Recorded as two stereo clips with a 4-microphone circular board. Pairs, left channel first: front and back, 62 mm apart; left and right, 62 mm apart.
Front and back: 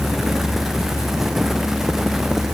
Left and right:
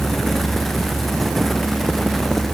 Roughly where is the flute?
I don't hear a flute.